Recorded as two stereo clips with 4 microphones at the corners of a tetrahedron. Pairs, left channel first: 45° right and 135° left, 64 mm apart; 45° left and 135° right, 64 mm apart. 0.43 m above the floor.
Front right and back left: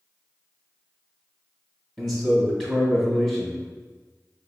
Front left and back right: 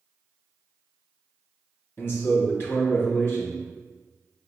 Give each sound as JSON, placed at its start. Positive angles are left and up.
{"t": 2.0, "sound": "a man speaking", "azimuth_deg": 30, "distance_m": 1.4}